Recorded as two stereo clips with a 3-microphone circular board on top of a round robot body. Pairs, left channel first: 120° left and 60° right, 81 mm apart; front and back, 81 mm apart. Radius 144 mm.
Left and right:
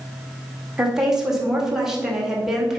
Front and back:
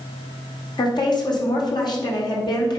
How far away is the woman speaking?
About 2.5 m.